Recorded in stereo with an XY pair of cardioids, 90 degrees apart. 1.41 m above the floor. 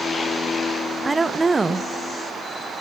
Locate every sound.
1.0 s a woman speaking: 20° right, 0.7 m